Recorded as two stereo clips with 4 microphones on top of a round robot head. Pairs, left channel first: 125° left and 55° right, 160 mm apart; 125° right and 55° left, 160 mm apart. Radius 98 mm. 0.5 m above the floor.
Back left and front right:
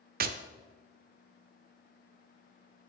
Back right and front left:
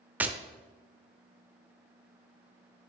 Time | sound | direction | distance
0.2 | tapping | 25° right | 0.7 m